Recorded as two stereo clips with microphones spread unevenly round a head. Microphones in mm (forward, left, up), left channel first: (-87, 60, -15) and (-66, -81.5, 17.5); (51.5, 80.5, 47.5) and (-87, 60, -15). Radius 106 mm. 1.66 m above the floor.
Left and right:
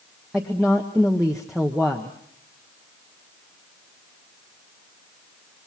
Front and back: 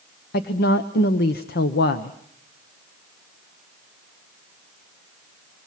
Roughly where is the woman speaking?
Ahead.